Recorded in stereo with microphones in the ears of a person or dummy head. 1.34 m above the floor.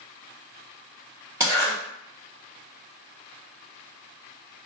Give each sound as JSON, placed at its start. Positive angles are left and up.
{"t": 1.4, "sound": "a zipper", "side_deg": -20, "distance_m": 1.2}